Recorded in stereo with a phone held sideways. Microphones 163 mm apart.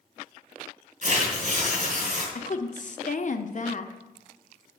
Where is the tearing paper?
60° right (ahead or behind), 3 m.